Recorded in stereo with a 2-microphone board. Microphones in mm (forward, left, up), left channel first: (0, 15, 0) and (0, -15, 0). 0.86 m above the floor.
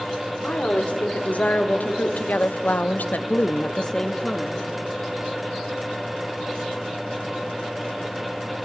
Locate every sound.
0.4 s a woman speaking: 45° left (ahead or behind), 2.5 m; by 4.7 s 5° left (ahead or behind), 1.3 m